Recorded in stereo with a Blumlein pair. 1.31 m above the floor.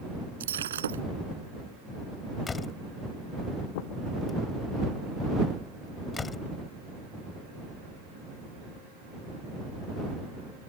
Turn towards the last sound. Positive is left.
turn(degrees=20)